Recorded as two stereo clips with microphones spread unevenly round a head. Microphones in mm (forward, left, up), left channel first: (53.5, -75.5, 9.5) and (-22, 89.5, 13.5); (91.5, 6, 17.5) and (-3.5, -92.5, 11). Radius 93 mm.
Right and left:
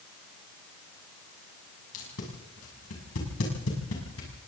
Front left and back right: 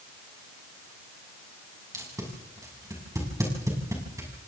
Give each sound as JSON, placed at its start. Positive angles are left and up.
{"t": 1.9, "sound": "tape being pulled", "azimuth_deg": -70, "distance_m": 7.0}